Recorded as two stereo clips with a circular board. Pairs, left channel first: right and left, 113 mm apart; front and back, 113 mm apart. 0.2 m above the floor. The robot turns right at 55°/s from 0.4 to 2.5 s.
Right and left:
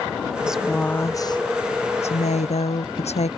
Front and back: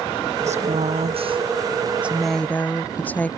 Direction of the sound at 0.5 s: 170° left.